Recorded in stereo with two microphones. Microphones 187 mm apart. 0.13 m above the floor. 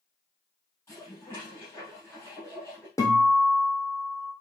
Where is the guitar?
15° left (ahead or behind), 2 m.